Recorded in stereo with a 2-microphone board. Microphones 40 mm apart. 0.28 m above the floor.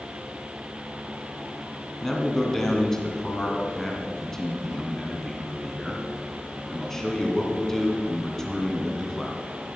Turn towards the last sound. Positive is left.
turn(degrees=10)  # may be behind; listen again after turning